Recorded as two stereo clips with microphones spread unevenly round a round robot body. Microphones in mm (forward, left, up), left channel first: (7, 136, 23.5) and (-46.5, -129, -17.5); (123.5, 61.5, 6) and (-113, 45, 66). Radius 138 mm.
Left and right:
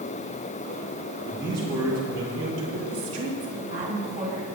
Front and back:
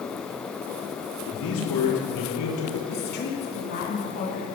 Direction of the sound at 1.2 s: 20° right.